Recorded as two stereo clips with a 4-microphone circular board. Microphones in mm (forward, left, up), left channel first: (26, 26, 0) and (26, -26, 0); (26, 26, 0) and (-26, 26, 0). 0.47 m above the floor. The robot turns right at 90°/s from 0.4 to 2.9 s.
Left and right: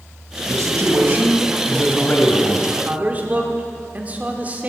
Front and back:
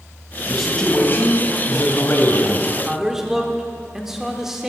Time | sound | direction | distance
0.5 | a man speaking | 100° right | 2.5 m
2.7 | a man speaking | 120° right | 1.5 m